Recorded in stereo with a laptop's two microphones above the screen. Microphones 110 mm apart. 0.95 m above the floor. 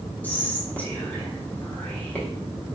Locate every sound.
0.2 s whispering: 15° left (ahead or behind), 0.7 m